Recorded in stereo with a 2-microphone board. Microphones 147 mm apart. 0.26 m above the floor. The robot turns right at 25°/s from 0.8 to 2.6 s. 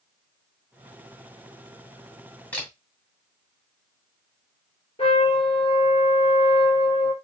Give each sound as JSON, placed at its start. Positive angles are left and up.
{"t": 2.5, "sound": "a camera shutter", "side_deg": 10, "distance_m": 2.0}
{"t": 5.0, "sound": "a trumpet", "side_deg": 40, "distance_m": 1.3}